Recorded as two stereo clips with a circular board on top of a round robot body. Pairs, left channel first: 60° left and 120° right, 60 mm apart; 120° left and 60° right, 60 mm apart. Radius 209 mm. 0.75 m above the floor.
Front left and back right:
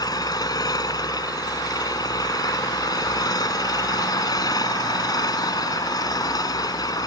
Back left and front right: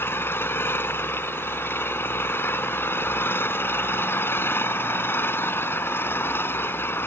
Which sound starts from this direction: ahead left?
An engine running, at 0.0 s.